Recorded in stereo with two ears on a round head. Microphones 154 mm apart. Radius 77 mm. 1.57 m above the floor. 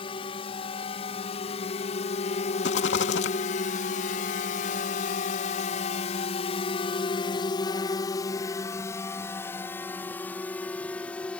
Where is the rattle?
75° left (ahead or behind).